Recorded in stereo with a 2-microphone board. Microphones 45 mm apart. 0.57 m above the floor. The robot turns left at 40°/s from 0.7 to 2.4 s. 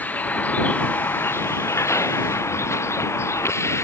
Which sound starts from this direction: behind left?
A vehicle, at 0.0 s.